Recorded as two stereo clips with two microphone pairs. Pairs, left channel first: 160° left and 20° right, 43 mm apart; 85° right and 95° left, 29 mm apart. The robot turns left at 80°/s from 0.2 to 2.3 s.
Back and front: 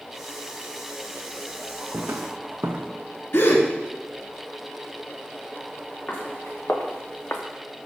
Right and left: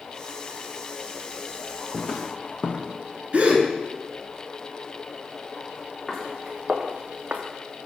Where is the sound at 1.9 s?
25° right, 0.9 m; by 2.9 s 50° right, 0.9 m.